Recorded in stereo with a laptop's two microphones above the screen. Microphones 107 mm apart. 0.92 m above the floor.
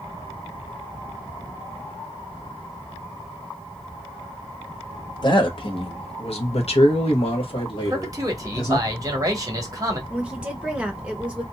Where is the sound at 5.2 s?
45° left (ahead or behind), 1.4 m; by 8.8 s 40° left (ahead or behind), 2.0 m.